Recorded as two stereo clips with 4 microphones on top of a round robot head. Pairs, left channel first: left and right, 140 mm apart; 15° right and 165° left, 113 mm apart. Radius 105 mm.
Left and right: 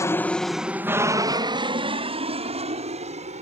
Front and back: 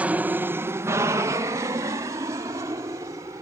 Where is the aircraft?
110° left; by 3.4 s 130° right.